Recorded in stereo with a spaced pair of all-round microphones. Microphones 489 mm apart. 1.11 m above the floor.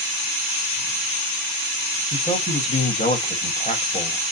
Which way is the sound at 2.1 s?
15° left (ahead or behind).